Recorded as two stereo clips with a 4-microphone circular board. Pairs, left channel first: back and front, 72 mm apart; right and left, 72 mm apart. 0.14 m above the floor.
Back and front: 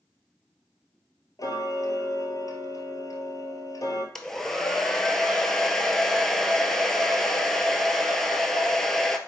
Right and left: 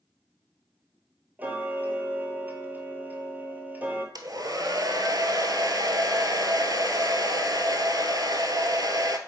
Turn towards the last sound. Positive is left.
turn(degrees=95)